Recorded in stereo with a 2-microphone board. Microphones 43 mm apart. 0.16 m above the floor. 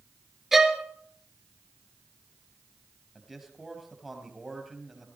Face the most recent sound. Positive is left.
turn(degrees=-5)  # may be behind; listen again after turning